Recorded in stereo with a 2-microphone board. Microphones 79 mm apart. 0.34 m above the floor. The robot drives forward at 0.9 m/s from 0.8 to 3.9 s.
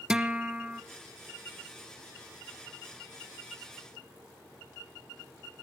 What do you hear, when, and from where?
0.1 s a guitar: 10° right (ahead or behind), 0.7 m